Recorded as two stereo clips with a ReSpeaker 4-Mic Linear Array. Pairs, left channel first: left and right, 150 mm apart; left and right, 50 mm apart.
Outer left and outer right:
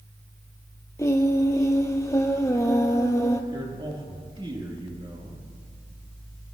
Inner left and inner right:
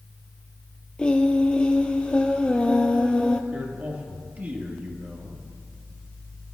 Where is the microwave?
No microwave in this recording.